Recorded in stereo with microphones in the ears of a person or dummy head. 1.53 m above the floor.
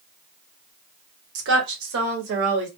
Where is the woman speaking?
70° right (ahead or behind), 1.1 m; by 2.7 s 75° right (ahead or behind), 1.9 m.